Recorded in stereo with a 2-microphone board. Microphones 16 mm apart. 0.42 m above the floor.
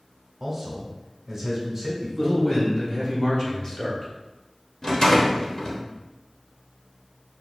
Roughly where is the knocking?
No knocking in this recording.